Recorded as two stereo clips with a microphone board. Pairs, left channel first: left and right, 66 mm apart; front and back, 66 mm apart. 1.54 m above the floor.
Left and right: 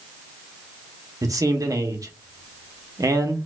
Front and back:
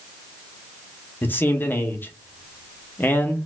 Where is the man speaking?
60° right, 0.9 m.